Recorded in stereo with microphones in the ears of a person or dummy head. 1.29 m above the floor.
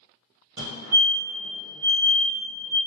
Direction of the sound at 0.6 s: 60° right (ahead or behind).